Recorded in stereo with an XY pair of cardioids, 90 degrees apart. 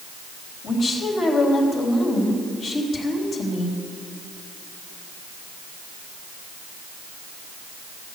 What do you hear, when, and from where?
0.6 s a woman speaking: 65° left, 3.5 m